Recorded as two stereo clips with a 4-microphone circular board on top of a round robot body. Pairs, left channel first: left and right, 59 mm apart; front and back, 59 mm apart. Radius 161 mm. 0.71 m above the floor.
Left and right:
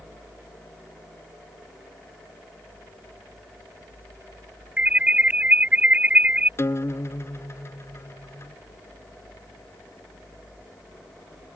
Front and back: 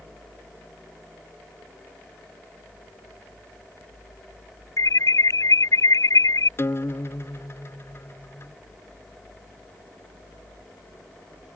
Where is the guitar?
45° left.